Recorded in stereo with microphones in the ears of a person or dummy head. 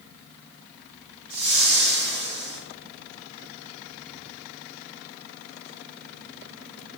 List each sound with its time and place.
1.3 s a whoosh: 45° right (ahead or behind), 0.8 m